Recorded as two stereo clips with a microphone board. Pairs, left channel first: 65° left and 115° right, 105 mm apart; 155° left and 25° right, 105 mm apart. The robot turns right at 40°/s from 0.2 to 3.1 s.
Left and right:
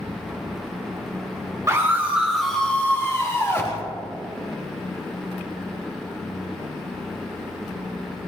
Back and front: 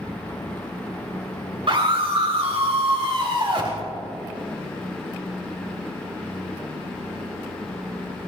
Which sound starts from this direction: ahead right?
A scream, at 1.7 s.